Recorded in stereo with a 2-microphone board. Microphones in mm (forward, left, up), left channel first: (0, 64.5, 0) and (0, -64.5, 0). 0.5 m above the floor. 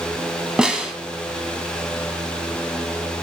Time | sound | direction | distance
0.6 | a snare drum | 5° right (ahead or behind) | 2.5 m